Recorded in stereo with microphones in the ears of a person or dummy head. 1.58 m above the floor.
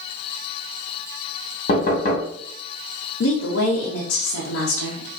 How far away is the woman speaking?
About 0.7 m.